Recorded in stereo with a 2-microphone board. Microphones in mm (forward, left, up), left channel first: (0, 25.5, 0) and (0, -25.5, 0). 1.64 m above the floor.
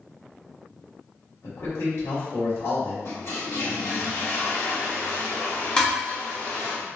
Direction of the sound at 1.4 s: 75° left (ahead or behind).